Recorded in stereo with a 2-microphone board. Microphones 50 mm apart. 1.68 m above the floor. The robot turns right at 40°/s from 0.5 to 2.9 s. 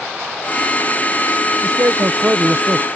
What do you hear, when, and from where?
1.6 s a man speaking: 95° right; by 2.9 s 45° right